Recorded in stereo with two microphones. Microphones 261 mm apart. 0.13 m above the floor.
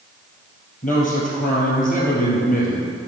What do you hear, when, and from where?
0.8 s a man speaking: 30° left (ahead or behind), 2.5 m